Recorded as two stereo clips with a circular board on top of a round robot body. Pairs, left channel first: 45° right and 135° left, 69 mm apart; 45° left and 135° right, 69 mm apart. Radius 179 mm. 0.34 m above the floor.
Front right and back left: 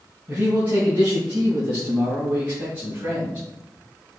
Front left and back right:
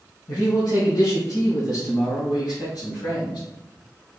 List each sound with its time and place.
0.3 s a man speaking: 70° left, 3.5 m; by 3.4 s 60° left, 6 m